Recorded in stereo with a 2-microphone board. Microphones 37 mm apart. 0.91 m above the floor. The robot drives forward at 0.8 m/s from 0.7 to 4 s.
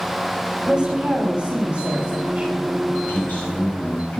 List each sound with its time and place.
0.7 s a woman speaking: 25° right (ahead or behind), 5 m; by 2.6 s 40° right (ahead or behind), 4 m
3.1 s a man speaking: 55° left (ahead or behind), 6.5 m; by 4.2 s 50° left (ahead or behind), 7 m